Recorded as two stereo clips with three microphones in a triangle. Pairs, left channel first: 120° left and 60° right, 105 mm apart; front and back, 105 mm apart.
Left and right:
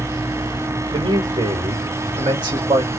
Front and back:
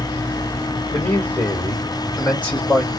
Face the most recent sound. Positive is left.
turn(degrees=-60)